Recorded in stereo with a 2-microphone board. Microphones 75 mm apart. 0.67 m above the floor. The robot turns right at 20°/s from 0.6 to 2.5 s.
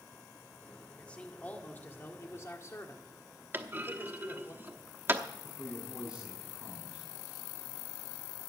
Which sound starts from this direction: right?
A clunk, at 3.5 s.